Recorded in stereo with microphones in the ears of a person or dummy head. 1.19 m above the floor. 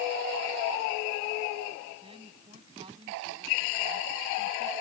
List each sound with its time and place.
2.0 s a woman speaking: 30° right (ahead or behind); by 4.7 s 25° right (ahead or behind)